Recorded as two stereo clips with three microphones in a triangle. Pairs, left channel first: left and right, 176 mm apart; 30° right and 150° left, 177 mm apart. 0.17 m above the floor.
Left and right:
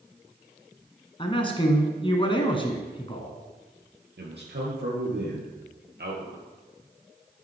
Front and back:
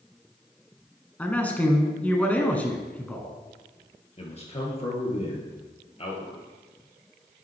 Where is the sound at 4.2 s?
80° right, 3 m.